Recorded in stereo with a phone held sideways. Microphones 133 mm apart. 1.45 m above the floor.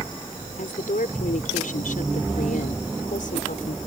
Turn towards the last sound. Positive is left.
turn(degrees=85)